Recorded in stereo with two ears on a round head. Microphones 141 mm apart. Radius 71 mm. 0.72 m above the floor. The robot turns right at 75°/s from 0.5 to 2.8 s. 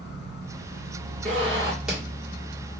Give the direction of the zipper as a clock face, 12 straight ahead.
2 o'clock.